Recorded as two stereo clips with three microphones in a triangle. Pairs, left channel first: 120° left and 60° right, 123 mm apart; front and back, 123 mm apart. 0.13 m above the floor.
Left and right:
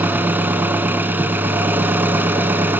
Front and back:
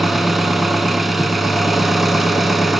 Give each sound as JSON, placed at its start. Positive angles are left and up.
{"t": 0.0, "sound": "an engine running", "azimuth_deg": -90, "distance_m": 1.0}